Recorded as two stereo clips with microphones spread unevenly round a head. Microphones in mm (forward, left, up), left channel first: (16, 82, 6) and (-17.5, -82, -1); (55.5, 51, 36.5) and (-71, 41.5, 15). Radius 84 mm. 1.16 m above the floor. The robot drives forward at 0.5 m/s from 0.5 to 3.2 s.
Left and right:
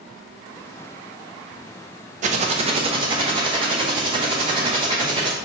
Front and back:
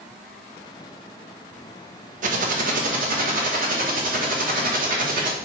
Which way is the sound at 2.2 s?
150° right.